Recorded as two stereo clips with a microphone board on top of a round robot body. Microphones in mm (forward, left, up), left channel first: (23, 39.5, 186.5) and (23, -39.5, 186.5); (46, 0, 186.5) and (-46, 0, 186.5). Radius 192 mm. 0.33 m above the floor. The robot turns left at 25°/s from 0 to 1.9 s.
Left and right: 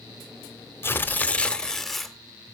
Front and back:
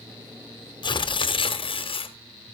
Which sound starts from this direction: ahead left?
Tearing paper, at 0.8 s.